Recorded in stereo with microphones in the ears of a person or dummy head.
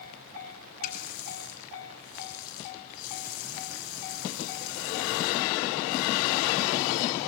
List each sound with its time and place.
0.8 s a running tap: 45° left (ahead or behind), 4.5 m